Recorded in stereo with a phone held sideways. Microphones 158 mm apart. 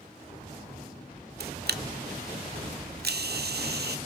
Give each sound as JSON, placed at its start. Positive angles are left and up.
{"t": 1.4, "sound": "a camera shutter", "side_deg": -85, "distance_m": 0.7}